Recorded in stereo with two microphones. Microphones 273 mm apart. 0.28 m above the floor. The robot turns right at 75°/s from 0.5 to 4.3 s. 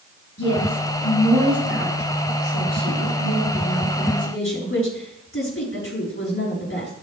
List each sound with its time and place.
0.4 s a woman speaking: 125° left, 5 m; by 6.9 s 50° left, 5 m